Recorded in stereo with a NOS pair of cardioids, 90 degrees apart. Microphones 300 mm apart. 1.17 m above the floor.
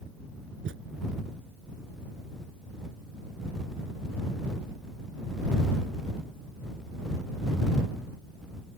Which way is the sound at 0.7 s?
45° right.